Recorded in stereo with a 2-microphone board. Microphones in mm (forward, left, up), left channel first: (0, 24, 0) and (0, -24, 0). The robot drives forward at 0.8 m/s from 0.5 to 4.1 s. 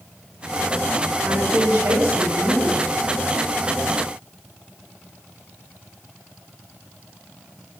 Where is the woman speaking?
80° right, 4.5 m; by 2.8 s 75° right (ahead or behind), 4.5 m.